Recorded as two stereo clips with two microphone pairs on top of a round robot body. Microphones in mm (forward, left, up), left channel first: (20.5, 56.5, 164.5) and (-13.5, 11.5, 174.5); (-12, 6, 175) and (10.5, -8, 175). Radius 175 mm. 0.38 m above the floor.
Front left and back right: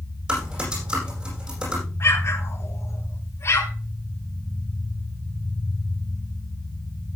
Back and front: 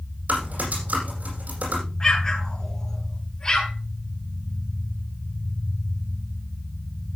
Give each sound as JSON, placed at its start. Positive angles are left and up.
{"t": 0.3, "sound": "typing on a keyboard", "azimuth_deg": -55, "distance_m": 8.5}
{"t": 2.0, "sound": "an explosion", "azimuth_deg": 85, "distance_m": 4.0}